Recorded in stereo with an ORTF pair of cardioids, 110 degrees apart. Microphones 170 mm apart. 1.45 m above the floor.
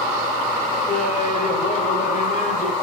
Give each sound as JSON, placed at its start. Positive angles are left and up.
{"t": 0.9, "sound": "laughter", "azimuth_deg": 45, "distance_m": 6.0}